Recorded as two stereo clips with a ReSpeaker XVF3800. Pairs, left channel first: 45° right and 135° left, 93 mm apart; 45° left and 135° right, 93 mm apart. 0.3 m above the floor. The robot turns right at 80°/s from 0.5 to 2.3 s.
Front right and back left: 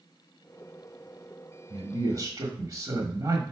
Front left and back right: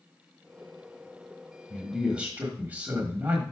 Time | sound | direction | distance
1.7 | a man speaking | 115° left | 1.2 m